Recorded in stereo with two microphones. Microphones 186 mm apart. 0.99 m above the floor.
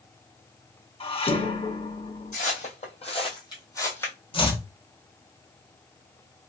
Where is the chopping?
30° left (ahead or behind), 0.8 m.